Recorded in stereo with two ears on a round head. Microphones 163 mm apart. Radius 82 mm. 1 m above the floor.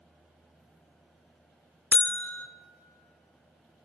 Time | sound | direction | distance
1.9 | a buzzer | 10° left (ahead or behind) | 0.6 m